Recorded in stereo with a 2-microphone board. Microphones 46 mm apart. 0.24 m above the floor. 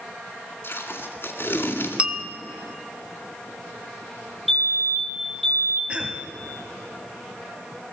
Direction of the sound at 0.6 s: 55° left (ahead or behind).